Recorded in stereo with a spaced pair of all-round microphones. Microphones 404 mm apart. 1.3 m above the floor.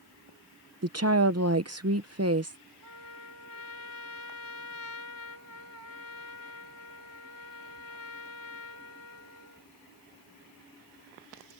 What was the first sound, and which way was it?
A woman speaking, 35° right (ahead or behind).